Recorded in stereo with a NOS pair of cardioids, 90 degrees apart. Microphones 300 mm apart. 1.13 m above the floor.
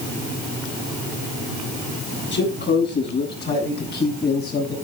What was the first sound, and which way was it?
A man speaking, 35° left.